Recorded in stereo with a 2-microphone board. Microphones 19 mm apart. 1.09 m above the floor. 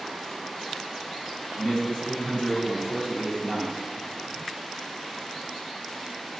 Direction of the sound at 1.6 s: 55° left (ahead or behind).